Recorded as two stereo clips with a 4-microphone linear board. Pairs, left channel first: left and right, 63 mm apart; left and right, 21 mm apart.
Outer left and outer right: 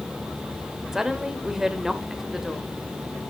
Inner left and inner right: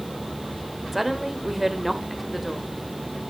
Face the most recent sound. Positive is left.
turn(degrees=-10)  # may be behind; listen again after turning